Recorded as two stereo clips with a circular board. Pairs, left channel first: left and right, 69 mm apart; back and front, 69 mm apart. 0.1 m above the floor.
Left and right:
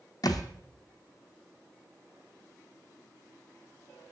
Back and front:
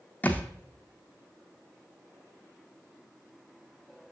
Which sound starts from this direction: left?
A thud, at 0.2 s.